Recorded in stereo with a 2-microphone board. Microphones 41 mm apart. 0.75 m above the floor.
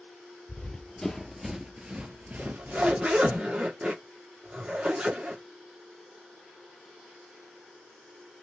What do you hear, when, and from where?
0.5 s running footsteps: 20° left (ahead or behind), 1.0 m; by 3.4 s 55° right (ahead or behind), 1.3 m
2.4 s a zipper: 30° right (ahead or behind), 1.2 m